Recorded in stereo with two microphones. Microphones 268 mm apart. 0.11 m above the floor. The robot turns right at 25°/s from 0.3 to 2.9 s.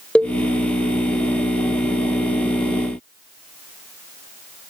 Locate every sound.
0.1 s a cowbell: 5° left (ahead or behind), 1.0 m